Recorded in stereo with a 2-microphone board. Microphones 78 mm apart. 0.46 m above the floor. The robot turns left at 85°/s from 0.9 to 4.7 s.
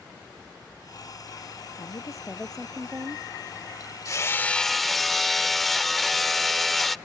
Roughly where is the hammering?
Ahead left.